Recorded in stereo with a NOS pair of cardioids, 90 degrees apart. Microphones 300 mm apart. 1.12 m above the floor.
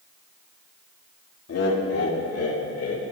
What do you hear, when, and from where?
1.5 s laughter: 55° left, 3 m; by 3.0 s 50° left, 5 m